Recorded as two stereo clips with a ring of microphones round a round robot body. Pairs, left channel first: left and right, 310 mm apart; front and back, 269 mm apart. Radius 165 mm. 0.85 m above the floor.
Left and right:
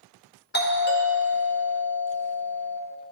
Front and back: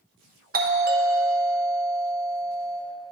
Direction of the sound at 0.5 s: 135° left.